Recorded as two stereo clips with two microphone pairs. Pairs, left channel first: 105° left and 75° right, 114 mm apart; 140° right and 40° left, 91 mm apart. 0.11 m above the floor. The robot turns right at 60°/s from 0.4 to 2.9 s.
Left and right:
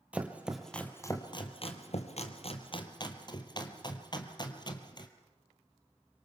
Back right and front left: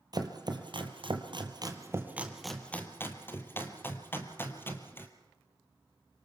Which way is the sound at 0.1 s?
Straight ahead.